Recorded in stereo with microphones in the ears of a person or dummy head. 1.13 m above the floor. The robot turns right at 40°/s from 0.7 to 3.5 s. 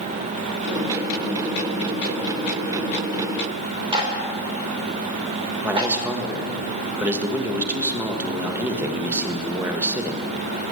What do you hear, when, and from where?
3.9 s a clap: 20° right (ahead or behind), 2.5 m
5.6 s a man speaking: 15° right (ahead or behind), 1.3 m